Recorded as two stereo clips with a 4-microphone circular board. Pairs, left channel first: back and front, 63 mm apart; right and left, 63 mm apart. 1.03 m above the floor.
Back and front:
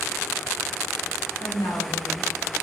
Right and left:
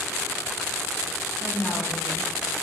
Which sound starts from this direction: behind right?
A woman speaking, at 1.4 s.